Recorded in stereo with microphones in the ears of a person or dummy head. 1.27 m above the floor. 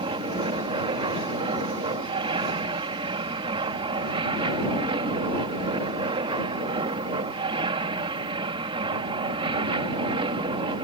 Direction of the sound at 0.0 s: 25° right (ahead or behind).